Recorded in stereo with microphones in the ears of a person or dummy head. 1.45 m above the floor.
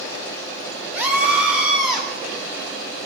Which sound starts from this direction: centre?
A scream, at 0.9 s.